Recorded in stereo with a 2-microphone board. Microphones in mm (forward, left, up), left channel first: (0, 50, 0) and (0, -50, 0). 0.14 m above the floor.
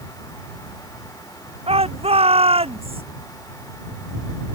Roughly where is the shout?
Right.